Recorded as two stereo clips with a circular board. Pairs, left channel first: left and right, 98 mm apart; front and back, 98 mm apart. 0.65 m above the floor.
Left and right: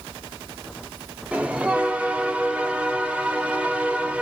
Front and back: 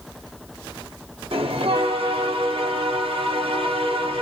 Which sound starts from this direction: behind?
A bell, at 1.3 s.